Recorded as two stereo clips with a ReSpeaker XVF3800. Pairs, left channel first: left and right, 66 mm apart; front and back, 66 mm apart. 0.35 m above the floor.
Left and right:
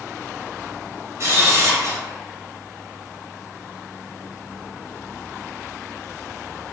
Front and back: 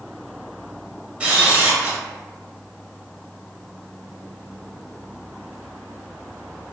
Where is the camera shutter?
115° right, 1.0 m.